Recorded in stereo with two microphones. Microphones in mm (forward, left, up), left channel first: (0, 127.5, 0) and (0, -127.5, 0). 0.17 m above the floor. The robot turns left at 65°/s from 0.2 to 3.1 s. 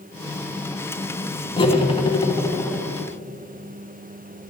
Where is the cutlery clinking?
20° left (ahead or behind), 0.6 m; by 2.8 s 10° left (ahead or behind), 0.6 m.